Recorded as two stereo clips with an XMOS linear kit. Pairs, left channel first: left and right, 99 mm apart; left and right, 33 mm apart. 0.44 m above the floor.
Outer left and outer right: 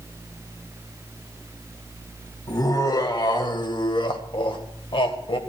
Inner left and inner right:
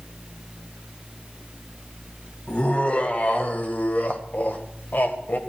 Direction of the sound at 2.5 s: 40° left (ahead or behind).